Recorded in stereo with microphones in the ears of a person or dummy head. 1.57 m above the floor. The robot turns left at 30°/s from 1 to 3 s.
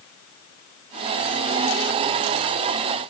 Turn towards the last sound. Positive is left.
No sound to turn to.